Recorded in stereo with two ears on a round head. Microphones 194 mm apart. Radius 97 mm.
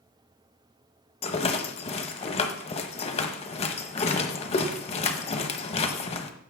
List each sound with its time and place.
1.2 s a rattle: 30° left (ahead or behind), 1.0 m